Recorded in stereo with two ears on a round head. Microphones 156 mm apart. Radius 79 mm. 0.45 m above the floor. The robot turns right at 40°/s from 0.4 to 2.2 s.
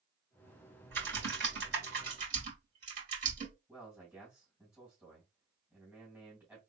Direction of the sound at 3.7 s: 10° right (ahead or behind).